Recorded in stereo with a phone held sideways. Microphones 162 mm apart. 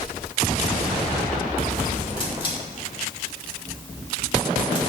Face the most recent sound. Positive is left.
turn(degrees=30)  # may be behind; listen again after turning